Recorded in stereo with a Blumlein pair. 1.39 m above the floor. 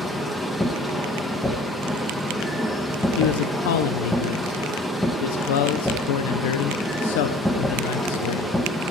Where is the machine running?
Straight ahead, 0.8 m.